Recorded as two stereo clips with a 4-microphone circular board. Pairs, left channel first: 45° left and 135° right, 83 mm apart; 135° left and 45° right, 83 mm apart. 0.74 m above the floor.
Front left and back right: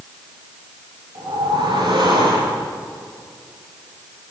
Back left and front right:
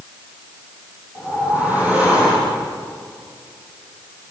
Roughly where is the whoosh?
Behind right.